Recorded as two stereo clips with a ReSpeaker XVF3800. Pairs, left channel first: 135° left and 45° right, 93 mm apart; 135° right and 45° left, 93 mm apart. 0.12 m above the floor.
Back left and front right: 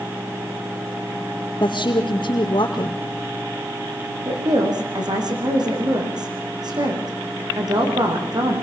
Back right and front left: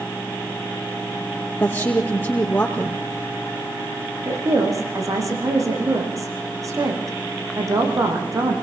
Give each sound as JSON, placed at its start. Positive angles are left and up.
{"t": 1.6, "sound": "a woman speaking", "azimuth_deg": 160, "distance_m": 4.0}
{"t": 4.2, "sound": "a woman speaking", "azimuth_deg": -5, "distance_m": 7.5}